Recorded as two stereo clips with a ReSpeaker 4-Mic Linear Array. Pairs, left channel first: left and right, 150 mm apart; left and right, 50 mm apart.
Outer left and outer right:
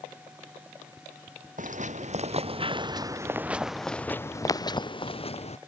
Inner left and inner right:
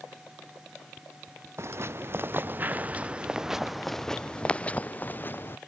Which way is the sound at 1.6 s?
55° right (ahead or behind).